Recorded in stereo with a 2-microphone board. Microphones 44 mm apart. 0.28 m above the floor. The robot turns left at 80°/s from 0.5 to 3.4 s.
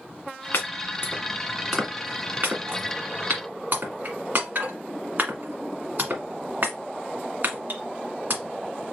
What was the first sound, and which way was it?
Chopping, 65° left (ahead or behind).